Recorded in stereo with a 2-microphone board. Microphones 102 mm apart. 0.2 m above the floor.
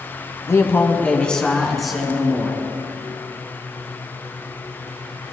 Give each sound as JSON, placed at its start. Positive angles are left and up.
{"t": 0.5, "sound": "a man speaking", "side_deg": 30, "distance_m": 1.1}